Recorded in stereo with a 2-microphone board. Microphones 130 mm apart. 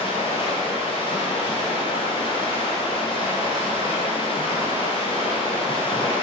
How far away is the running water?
About 1.0 m.